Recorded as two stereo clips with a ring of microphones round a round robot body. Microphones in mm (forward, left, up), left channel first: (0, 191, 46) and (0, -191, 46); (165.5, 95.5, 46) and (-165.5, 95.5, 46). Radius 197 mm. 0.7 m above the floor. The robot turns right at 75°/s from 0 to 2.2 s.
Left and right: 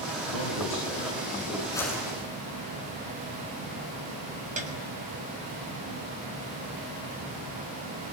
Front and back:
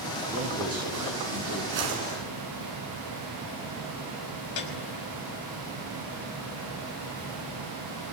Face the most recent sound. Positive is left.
turn(degrees=-20)